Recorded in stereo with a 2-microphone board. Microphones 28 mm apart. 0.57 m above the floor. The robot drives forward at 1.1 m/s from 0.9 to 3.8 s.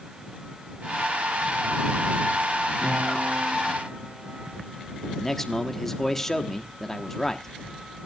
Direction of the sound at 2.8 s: 80° right.